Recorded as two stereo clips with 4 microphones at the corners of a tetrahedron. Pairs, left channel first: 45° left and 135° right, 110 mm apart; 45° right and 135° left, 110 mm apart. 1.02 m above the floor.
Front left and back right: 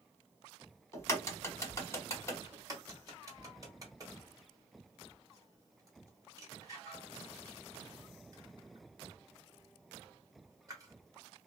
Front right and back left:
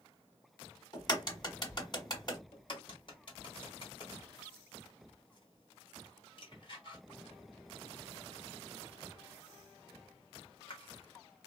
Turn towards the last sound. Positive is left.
turn(degrees=-80)